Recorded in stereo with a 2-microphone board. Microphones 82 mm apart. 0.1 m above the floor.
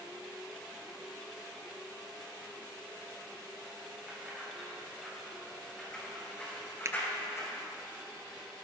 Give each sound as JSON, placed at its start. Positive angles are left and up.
{"t": 4.1, "sound": "keys jangling", "side_deg": -10, "distance_m": 6.5}
{"t": 6.8, "sound": "a finger snap", "side_deg": -40, "distance_m": 1.2}